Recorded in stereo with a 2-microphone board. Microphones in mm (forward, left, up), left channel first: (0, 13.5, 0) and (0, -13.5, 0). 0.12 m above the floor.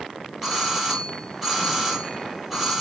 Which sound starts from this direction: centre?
A doorbell, at 0.4 s.